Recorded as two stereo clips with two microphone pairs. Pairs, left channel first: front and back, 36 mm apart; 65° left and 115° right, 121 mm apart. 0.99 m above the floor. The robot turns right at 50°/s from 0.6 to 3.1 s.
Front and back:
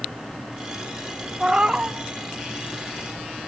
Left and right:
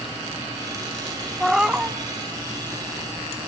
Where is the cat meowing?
150° left, 0.5 m; by 2.0 s straight behind, 0.5 m.